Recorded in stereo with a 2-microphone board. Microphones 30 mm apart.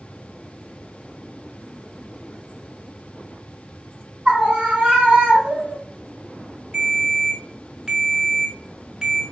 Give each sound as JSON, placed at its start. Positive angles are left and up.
{"t": 4.2, "sound": "a scream", "side_deg": -45, "distance_m": 2.5}
{"t": 6.7, "sound": "a ringtone", "side_deg": -30, "distance_m": 1.4}